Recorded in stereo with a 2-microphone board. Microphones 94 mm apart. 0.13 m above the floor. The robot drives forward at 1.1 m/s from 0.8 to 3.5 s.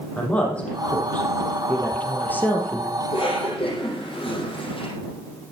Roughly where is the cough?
Left.